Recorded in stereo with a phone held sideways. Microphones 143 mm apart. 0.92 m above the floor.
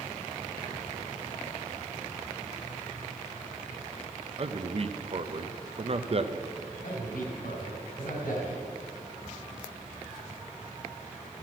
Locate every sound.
4.4 s a man speaking: 45° right (ahead or behind), 0.6 m
6.8 s a man speaking: 80° left, 4 m